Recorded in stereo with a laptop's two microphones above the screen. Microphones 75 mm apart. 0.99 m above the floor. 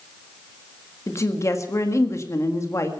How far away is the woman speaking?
About 1.6 m.